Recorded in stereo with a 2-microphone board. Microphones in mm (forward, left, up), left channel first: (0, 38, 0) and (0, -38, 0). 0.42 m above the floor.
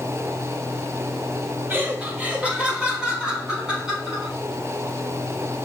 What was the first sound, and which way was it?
Laughter, 30° right (ahead or behind).